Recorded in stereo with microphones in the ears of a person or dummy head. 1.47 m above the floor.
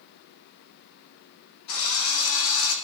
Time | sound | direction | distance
1.7 | a drill | 85° left | 7 m